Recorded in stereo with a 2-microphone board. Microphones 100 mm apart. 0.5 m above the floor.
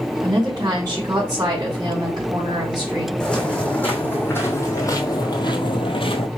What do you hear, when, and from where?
0.2 s a woman speaking: 40° right (ahead or behind), 2 m
3.2 s footsteps: 10° left (ahead or behind), 1.8 m; by 6.3 s 65° left (ahead or behind), 1.0 m